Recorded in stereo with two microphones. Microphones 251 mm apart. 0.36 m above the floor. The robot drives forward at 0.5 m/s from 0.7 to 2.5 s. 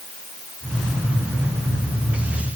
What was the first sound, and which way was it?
Only background noise.